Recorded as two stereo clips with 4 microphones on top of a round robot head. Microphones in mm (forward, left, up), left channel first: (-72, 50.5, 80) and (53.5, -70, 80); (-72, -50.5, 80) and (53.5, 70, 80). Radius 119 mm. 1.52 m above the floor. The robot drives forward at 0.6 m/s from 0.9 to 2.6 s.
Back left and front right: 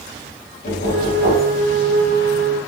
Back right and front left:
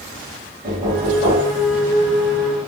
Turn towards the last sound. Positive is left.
turn(degrees=125)